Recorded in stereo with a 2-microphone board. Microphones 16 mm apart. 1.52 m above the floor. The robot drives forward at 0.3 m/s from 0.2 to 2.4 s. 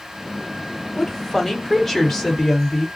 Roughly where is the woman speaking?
Left.